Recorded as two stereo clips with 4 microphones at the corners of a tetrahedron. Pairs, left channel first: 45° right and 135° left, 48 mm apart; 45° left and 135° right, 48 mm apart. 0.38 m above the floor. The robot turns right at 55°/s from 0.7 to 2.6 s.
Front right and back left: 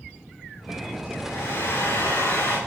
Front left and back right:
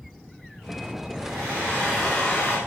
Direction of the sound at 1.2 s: 85° right.